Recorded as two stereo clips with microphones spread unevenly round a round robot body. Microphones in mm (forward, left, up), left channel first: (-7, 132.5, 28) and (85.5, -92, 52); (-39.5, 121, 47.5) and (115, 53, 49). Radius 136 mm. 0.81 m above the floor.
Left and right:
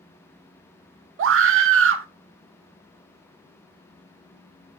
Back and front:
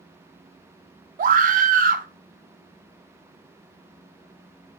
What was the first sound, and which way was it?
A scream, 40° right.